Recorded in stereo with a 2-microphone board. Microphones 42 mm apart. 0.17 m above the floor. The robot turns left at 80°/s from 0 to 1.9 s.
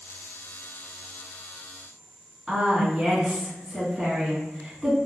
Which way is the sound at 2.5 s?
10° right (ahead or behind).